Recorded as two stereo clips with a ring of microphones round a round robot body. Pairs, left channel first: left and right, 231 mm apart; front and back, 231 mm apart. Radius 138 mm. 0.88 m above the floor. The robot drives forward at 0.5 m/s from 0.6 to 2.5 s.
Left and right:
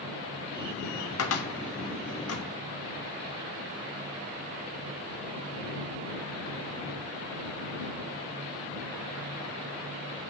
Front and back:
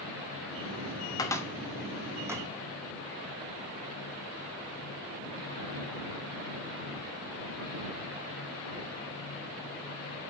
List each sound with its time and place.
1.2 s a cupboard door: 75° left, 1.3 m; by 2.5 s 105° left, 1.3 m